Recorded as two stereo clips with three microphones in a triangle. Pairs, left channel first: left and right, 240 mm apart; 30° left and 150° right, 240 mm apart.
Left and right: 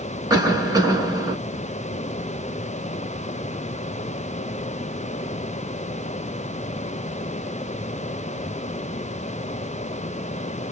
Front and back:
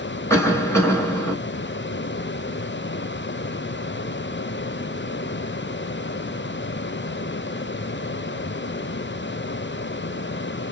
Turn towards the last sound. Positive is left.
turn(degrees=-35)